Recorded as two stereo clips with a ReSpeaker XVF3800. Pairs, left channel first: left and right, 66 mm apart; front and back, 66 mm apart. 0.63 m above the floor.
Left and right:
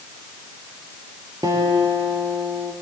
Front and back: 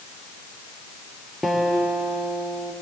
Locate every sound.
1.4 s a guitar: 90° right, 2.5 m